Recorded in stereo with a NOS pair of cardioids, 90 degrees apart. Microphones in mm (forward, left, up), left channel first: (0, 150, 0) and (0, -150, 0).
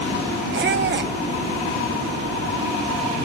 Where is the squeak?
40° right, 1.3 m.